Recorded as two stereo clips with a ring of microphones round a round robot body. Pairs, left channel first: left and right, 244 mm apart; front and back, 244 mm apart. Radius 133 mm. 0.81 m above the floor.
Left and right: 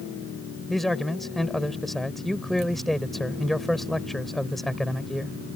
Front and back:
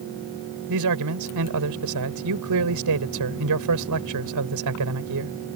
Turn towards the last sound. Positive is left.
turn(degrees=180)